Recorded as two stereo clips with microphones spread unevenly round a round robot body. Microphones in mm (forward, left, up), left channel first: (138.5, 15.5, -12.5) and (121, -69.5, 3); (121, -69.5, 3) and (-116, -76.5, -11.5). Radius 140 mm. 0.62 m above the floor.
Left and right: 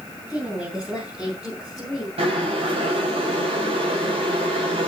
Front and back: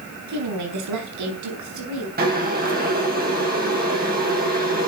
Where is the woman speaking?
170° left, 5 m.